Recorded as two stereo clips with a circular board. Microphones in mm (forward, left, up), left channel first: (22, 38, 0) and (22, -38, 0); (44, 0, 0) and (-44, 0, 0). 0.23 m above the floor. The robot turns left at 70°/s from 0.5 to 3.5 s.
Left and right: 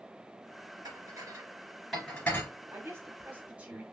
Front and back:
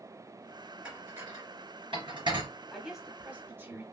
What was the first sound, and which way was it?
Dishes clattering, 100° right.